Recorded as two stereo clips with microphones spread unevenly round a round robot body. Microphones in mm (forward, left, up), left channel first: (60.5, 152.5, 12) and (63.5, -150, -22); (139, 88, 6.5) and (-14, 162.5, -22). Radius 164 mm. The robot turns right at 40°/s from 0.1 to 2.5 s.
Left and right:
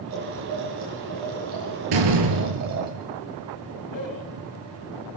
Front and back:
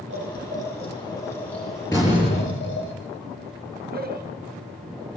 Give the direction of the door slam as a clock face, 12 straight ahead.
4 o'clock.